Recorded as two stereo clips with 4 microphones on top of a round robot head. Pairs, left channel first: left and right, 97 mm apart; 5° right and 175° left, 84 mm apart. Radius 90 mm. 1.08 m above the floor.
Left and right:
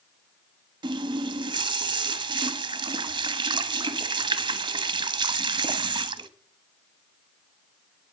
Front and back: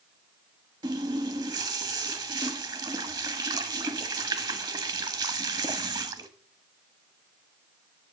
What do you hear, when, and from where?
0.8 s a running tap: 135° right, 1.0 m